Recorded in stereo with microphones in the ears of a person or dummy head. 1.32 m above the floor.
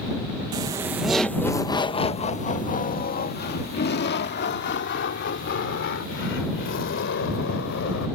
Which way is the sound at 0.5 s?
20° right (ahead or behind).